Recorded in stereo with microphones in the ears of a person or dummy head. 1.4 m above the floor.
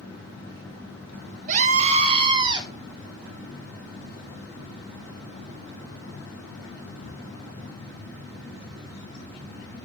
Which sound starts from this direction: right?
A scream, at 1.5 s.